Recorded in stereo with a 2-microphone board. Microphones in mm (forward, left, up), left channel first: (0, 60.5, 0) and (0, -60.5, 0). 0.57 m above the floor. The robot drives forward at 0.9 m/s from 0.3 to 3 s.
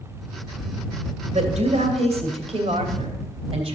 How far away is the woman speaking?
About 3 m.